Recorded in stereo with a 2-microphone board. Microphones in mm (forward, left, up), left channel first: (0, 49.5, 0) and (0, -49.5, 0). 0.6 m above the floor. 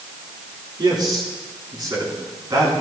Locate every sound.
0.8 s a man speaking: 50° right (ahead or behind), 7 m; by 2.7 s 35° right (ahead or behind), 5.5 m